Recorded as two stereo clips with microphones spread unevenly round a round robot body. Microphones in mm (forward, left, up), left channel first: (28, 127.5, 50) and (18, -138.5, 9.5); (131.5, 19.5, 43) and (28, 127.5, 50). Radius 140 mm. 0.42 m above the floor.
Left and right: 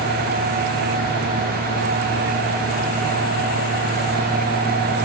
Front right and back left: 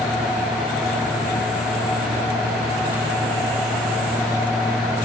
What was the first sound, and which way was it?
Only background noise.